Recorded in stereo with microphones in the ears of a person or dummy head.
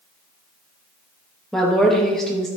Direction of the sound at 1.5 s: 5° left (ahead or behind).